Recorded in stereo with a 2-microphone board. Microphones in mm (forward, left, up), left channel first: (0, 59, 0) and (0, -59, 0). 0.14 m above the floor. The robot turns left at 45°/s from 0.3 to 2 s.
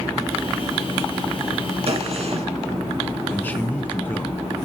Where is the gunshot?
55° right (ahead or behind), 3.5 m; by 2.5 s 60° right (ahead or behind), 3.5 m.